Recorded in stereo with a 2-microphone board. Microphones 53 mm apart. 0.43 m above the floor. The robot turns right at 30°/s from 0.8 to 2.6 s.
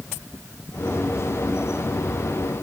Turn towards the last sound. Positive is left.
No sound to turn to.